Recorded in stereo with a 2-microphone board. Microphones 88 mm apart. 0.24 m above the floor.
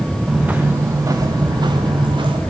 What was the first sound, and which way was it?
Footsteps, 10° right (ahead or behind).